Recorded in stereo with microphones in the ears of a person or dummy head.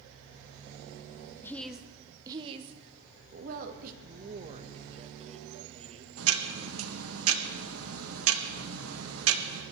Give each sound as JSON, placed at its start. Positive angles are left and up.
{"t": 1.4, "sound": "a woman speaking", "side_deg": 15, "distance_m": 1.0}
{"t": 4.0, "sound": "a man speaking", "side_deg": -35, "distance_m": 1.6}
{"t": 6.2, "sound": "ticking", "side_deg": -75, "distance_m": 1.9}